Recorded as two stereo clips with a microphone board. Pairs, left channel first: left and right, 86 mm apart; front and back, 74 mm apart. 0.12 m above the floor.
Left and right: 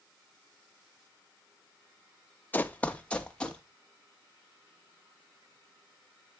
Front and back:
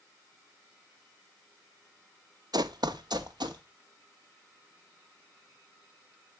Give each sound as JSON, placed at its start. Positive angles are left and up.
{"t": 2.5, "sound": "running footsteps", "azimuth_deg": 160, "distance_m": 0.7}